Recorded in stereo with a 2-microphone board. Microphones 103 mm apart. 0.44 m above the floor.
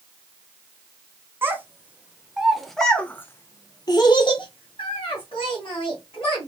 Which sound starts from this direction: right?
A child speaking, at 1.4 s.